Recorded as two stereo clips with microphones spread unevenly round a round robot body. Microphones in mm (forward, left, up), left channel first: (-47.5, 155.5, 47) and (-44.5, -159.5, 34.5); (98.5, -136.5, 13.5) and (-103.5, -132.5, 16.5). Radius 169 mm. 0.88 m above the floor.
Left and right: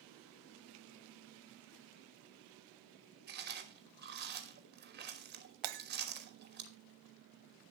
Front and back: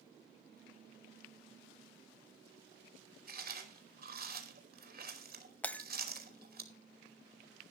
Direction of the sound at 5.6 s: 85° right.